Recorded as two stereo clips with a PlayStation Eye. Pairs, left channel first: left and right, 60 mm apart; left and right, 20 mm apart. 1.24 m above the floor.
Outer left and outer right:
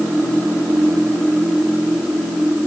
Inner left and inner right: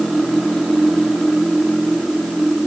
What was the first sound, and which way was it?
Only background noise.